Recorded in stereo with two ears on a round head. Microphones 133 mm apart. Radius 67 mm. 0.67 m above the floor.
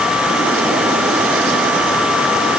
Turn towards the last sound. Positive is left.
No sound to turn to.